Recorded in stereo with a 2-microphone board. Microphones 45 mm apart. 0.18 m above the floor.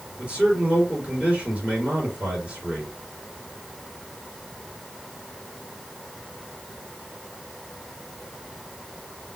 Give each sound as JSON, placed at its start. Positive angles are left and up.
{"t": 0.2, "sound": "a man speaking", "side_deg": -20, "distance_m": 3.5}